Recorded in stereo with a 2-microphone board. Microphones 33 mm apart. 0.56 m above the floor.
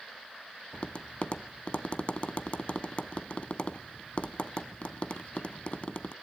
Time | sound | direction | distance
0.7 | tapping | 35° left (ahead or behind) | 0.6 m